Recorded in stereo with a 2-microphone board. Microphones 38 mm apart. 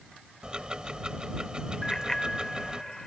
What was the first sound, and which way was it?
Ticking, 25° right (ahead or behind).